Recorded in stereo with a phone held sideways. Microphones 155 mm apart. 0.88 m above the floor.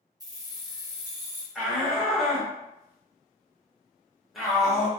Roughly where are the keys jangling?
Right.